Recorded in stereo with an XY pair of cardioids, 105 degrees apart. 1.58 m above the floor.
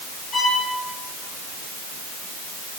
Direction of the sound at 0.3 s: 40° left.